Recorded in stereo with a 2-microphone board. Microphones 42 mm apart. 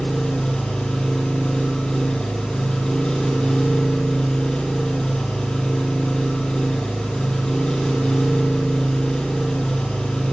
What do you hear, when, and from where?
0.0 s an engine running: 20° left (ahead or behind), 4.5 m